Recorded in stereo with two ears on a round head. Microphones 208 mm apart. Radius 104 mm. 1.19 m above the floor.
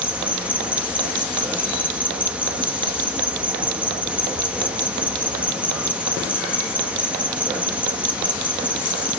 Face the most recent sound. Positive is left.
turn(degrees=-5)  # may be behind; listen again after turning